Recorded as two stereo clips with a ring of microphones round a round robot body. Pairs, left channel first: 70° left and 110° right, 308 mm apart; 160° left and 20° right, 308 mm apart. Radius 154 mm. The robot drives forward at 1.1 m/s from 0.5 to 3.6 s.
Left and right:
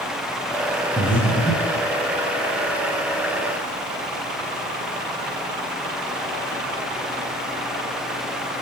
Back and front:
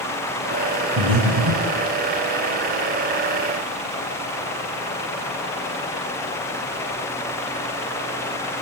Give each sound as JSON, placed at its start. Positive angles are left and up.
{"t": 1.0, "sound": "breathing", "azimuth_deg": -10, "distance_m": 3.5}